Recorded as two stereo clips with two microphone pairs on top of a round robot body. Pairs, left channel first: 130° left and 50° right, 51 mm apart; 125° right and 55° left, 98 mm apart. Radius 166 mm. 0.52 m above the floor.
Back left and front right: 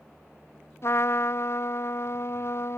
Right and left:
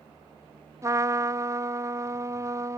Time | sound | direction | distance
0.8 | a trumpet | 105° left | ?